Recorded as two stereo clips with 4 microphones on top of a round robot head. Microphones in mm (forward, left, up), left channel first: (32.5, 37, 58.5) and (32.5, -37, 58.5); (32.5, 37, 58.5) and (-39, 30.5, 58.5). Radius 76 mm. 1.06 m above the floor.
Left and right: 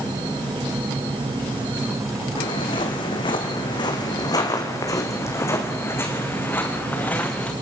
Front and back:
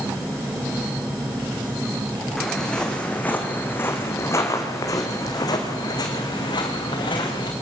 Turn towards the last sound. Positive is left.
turn(degrees=20)